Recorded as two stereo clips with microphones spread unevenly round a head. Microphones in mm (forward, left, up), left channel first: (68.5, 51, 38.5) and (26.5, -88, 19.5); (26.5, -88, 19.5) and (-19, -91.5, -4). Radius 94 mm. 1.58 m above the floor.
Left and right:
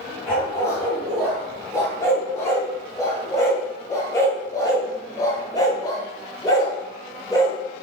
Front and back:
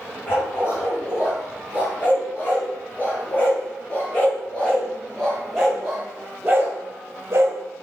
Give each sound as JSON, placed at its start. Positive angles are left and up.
{"t": 0.3, "sound": "a dog barking", "azimuth_deg": 5, "distance_m": 3.5}